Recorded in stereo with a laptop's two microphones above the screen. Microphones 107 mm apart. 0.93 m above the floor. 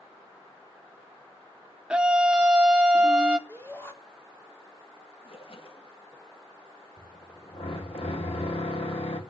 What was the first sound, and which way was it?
A scream, 10° right (ahead or behind).